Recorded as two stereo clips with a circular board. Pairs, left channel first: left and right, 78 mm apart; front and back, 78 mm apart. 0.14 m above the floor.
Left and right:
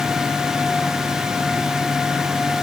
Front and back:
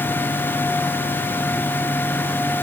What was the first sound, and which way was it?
Only background noise.